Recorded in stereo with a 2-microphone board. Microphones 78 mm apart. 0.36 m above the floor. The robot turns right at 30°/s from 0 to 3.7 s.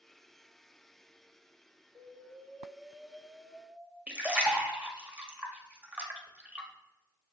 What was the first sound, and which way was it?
An explosion, 60° right.